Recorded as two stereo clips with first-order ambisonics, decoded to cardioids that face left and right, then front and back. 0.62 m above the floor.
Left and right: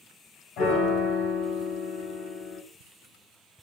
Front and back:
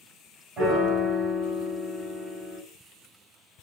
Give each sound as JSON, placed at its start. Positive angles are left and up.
{"t": 0.6, "sound": "a piano", "azimuth_deg": 115, "distance_m": 2.5}